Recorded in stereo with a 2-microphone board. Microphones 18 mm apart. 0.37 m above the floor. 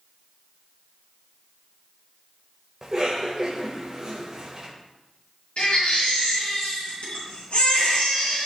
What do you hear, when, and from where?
2.8 s a cough: 30° right (ahead or behind), 1.5 m
5.6 s a baby crying: 70° left (ahead or behind), 3.5 m